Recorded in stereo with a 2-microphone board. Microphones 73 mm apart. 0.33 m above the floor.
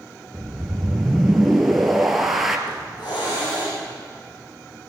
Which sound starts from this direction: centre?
A whoosh, at 0.3 s.